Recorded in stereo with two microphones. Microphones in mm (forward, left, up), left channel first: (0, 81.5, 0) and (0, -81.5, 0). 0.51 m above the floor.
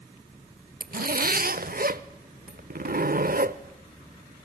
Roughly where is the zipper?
Right.